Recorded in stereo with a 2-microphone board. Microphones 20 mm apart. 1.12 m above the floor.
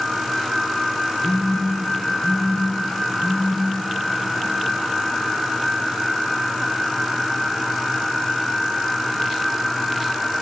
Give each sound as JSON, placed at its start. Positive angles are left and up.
{"t": 1.2, "sound": "a phone buzzing", "side_deg": 80, "distance_m": 9.0}